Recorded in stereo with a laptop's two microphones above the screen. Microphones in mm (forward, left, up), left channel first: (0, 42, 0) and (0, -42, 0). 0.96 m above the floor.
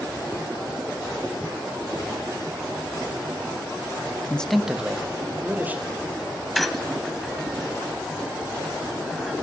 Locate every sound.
4.3 s a man speaking: 15° left (ahead or behind), 0.6 m; by 6.0 s 20° right (ahead or behind), 3 m
6.5 s a squeak: centre (ahead or behind), 0.9 m